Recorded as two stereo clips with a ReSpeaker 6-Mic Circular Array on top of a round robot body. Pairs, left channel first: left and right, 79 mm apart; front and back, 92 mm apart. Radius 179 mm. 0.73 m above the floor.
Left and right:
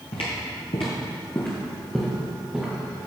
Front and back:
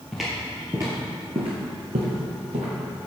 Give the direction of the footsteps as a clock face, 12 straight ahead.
9 o'clock.